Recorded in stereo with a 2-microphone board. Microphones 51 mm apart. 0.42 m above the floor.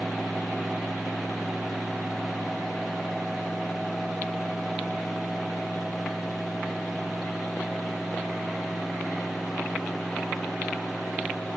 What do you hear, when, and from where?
Only background noise.